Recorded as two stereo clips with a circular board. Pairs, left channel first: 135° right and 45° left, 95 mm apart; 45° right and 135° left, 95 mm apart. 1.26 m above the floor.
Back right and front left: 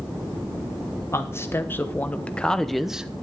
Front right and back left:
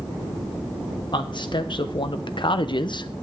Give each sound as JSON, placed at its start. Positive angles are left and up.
{"t": 1.1, "sound": "a man speaking", "azimuth_deg": -75, "distance_m": 1.4}